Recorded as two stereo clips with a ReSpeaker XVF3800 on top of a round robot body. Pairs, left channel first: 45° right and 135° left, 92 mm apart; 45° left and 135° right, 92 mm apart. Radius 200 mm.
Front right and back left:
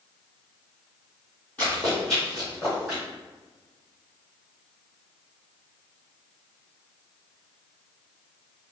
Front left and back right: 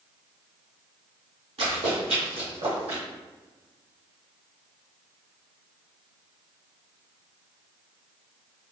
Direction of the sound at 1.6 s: 120° right.